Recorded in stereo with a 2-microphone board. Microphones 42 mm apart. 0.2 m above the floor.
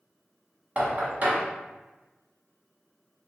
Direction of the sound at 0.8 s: 40° right (ahead or behind).